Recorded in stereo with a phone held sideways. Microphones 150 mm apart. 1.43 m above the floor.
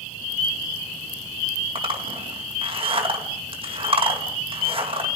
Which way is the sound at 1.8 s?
35° right (ahead or behind).